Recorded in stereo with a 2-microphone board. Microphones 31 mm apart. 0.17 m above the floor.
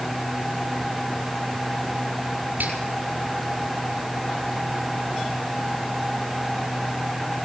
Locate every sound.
2.6 s a finger snap: 65° right (ahead or behind), 5 m